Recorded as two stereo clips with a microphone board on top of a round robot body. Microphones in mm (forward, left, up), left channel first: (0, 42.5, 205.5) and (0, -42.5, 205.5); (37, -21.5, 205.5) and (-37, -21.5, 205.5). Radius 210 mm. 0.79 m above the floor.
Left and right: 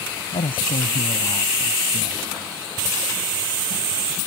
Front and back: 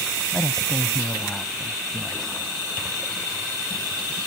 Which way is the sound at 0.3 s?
85° left.